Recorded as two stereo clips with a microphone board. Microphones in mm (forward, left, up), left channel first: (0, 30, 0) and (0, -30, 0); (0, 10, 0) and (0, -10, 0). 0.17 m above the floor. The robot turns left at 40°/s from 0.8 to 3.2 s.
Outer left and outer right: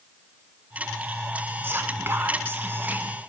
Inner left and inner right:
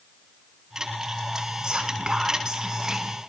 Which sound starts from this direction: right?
Whispering, at 1.6 s.